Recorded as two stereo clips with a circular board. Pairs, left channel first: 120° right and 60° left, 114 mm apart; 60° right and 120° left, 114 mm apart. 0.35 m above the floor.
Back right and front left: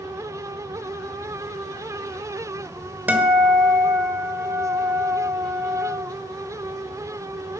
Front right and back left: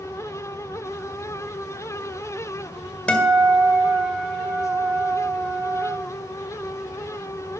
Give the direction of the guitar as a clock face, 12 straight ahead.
12 o'clock.